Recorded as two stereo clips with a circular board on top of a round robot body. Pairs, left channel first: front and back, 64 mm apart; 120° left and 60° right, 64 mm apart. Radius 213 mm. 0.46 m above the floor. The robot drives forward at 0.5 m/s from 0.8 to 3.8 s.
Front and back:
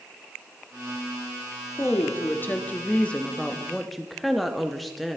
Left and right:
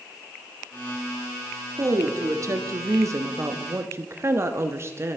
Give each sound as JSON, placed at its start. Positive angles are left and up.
{"t": 1.8, "sound": "a woman speaking", "azimuth_deg": -40, "distance_m": 1.7}